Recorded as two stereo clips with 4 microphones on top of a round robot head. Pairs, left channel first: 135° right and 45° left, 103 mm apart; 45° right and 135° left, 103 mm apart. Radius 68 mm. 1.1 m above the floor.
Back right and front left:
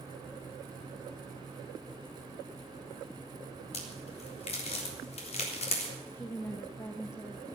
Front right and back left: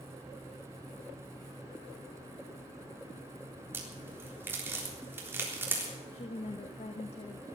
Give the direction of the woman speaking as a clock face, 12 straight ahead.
2 o'clock.